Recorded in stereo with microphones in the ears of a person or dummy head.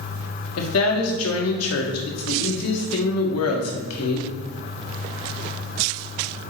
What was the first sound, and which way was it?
A woman speaking, 85° left.